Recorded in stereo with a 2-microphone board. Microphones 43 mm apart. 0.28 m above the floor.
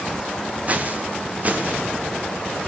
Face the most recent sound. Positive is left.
turn(degrees=-35)  # may be behind; listen again after turning